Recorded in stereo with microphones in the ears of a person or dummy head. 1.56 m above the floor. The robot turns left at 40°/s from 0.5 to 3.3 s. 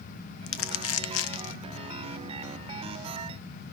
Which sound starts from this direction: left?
Crumpling, at 0.5 s.